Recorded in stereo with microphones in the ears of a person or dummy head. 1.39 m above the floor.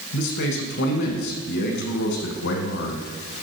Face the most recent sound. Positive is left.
turn(degrees=55)  # may be behind; listen again after turning